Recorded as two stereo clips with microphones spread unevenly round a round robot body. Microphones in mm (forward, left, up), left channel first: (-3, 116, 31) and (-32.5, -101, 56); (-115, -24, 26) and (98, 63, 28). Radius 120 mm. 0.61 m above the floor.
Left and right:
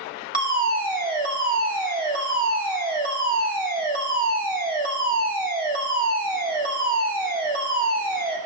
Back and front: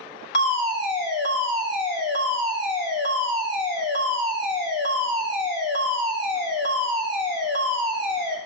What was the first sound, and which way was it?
A fire alarm, 140° right.